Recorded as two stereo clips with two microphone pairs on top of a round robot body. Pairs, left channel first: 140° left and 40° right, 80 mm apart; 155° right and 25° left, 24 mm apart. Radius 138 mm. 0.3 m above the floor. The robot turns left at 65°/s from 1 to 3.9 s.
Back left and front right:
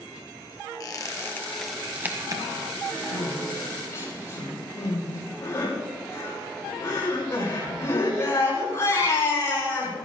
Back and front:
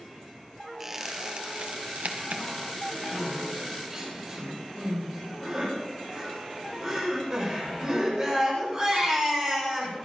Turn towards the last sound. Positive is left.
turn(degrees=85)